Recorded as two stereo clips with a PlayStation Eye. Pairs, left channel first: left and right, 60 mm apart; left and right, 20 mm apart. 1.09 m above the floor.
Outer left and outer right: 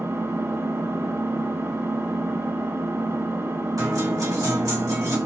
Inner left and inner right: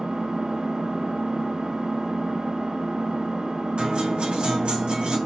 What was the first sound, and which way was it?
An engine running, 45° right (ahead or behind).